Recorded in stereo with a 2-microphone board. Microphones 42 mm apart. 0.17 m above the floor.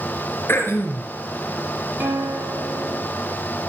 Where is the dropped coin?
I don't hear a dropped coin.